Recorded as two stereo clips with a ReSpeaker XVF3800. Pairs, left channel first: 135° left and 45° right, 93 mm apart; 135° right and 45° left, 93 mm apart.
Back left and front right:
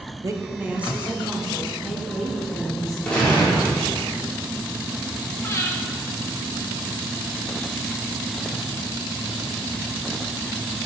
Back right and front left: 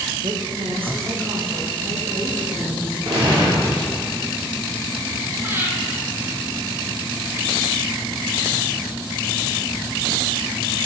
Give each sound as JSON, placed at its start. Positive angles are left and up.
{"t": 0.2, "sound": "a woman speaking", "azimuth_deg": 5, "distance_m": 0.7}
{"t": 3.0, "sound": "a gunshot", "azimuth_deg": 55, "distance_m": 3.5}
{"t": 5.4, "sound": "breathing", "azimuth_deg": 95, "distance_m": 1.0}